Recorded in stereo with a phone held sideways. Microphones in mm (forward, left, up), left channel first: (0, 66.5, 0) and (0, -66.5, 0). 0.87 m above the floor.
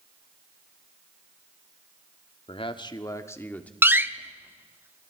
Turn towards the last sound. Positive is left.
turn(degrees=-15)  # may be behind; listen again after turning